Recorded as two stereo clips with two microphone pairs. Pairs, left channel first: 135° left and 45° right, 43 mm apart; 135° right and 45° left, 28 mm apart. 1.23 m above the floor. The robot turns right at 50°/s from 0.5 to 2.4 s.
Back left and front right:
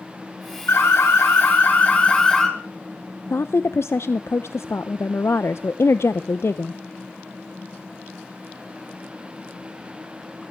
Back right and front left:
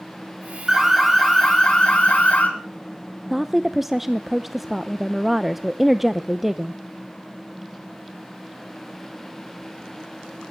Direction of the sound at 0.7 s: 120° left.